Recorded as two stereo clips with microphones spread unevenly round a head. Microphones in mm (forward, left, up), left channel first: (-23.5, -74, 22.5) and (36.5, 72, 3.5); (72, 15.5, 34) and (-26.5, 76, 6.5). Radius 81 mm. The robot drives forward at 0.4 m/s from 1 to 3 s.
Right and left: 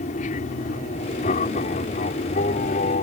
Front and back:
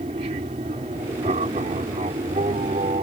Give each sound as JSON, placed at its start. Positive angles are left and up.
{"t": 0.0, "sound": "an aircraft", "azimuth_deg": -160}